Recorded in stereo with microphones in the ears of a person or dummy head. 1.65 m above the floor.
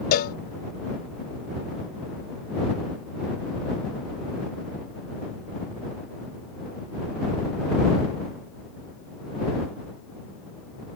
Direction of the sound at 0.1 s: 55° left (ahead or behind).